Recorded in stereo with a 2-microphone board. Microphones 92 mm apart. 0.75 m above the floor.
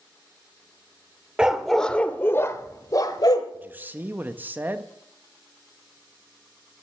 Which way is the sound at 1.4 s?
10° right (ahead or behind).